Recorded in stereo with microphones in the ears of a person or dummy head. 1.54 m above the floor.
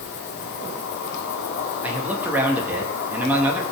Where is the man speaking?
10° right (ahead or behind), 2.5 m.